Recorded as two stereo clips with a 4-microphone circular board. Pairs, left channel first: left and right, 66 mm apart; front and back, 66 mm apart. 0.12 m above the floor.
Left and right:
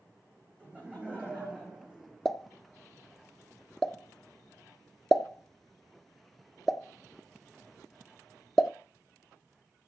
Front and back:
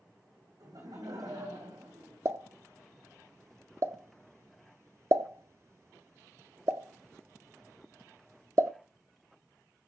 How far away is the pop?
About 0.6 m.